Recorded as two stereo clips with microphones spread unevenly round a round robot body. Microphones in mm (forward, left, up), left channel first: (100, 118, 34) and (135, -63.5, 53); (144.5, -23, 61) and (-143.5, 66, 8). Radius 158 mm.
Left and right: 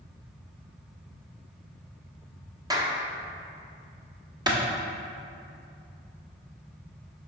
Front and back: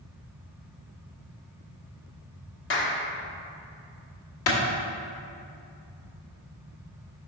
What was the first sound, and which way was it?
A clap, 20° right.